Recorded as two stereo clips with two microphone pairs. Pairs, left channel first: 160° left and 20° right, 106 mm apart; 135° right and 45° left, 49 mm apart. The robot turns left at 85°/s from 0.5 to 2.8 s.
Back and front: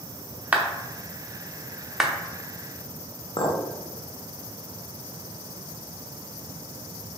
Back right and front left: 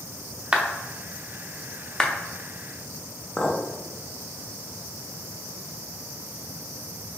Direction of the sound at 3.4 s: 160° left.